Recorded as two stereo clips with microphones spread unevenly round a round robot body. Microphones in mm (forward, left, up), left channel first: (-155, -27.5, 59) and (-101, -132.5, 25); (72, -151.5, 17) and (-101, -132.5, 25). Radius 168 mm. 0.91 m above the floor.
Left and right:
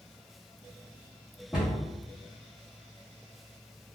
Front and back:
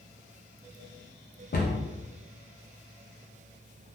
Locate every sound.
1.5 s a cupboard door: 15° left, 0.6 m